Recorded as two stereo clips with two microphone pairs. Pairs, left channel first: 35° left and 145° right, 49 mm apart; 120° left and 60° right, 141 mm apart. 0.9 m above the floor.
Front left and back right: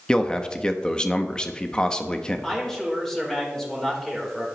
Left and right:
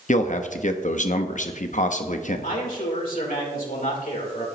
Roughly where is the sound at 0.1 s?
Left.